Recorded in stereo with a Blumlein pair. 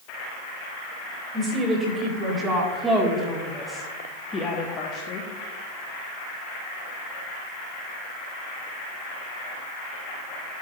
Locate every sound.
1.3 s a woman speaking: 25° right, 2.5 m; by 5.3 s 40° left, 1.1 m